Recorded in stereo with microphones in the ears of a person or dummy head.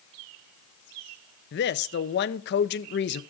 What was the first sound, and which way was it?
A woman speaking, 55° left (ahead or behind).